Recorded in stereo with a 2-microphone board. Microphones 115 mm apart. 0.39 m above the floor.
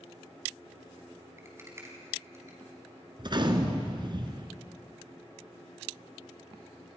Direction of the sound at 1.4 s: 20° right (ahead or behind).